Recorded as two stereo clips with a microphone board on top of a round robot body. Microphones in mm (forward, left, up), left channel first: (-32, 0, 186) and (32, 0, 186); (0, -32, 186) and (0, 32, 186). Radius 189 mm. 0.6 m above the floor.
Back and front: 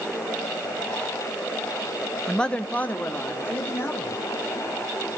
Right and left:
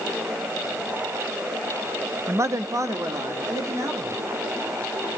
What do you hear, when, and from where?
2.3 s a man speaking: 100° left, 1.0 m; by 4.2 s 125° left, 3 m